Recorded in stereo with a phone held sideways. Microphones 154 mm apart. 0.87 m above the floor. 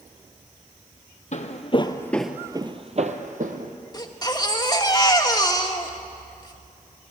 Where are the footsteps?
55° left (ahead or behind), 1.4 m; by 3.7 s 65° right (ahead or behind), 2.0 m.